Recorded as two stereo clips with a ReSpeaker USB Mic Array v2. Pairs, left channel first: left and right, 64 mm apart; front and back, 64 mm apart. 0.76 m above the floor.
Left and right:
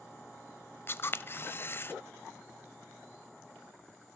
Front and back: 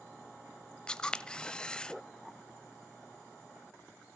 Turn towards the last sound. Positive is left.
turn(degrees=70)